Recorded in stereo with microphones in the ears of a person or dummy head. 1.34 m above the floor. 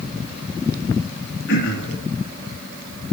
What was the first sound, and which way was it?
Throat clearing, 70° left (ahead or behind).